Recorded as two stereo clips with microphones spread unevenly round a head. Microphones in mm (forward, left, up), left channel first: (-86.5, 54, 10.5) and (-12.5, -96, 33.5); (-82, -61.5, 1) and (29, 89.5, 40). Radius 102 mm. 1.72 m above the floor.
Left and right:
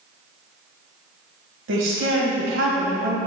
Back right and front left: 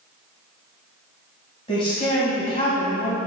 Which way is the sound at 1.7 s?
55° right.